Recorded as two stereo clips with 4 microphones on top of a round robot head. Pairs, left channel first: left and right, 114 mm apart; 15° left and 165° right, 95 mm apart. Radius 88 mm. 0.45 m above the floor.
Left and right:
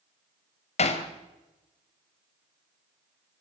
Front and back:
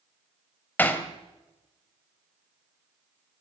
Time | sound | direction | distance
0.8 | hammering | 85° left | 2.5 m